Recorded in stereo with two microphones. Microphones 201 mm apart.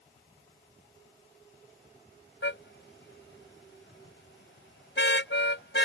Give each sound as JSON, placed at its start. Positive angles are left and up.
{"t": 2.4, "sound": "a car horn", "side_deg": 80}